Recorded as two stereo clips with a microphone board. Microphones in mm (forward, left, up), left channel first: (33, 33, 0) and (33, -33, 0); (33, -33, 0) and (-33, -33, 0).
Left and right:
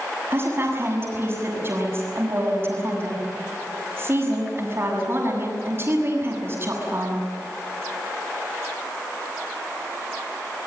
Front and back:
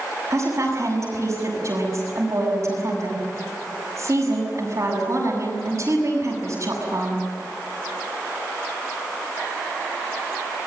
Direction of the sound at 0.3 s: 145° right.